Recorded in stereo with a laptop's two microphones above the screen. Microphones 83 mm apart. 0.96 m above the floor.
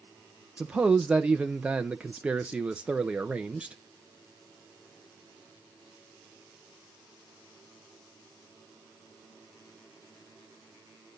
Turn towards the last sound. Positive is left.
turn(degrees=-15)  # may be behind; listen again after turning